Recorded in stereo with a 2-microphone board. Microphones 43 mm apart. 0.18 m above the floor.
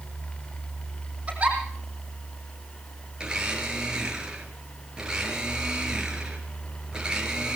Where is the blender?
20° right (ahead or behind), 3.5 m.